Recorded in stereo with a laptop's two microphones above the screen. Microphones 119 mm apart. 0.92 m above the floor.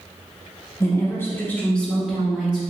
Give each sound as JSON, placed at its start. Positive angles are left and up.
{"t": 0.8, "sound": "a woman speaking", "side_deg": 25, "distance_m": 0.9}